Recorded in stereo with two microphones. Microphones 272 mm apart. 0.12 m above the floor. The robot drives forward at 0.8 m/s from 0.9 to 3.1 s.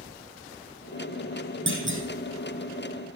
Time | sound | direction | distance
1.7 | a clunk | 50° right (ahead or behind) | 3 m